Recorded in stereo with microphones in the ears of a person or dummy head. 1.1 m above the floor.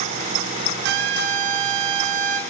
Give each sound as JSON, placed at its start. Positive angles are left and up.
{"t": 0.8, "sound": "a trumpet", "side_deg": -55, "distance_m": 1.6}